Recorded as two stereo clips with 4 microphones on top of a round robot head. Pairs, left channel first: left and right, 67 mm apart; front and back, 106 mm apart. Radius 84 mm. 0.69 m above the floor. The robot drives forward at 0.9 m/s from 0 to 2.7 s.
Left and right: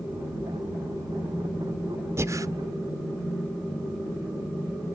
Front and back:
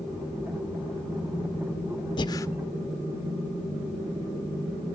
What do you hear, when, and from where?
2.2 s breathing: 45° right, 0.8 m; by 2.5 s 60° right, 0.7 m